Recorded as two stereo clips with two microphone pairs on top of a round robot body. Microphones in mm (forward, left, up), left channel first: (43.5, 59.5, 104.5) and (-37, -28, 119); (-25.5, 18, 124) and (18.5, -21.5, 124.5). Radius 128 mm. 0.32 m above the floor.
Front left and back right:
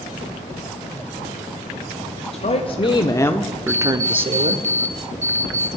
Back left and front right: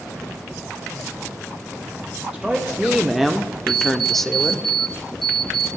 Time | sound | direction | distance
2.3 | a woman speaking | 45° left | 1.6 m
3.7 | an alarm clock | 135° right | 2 m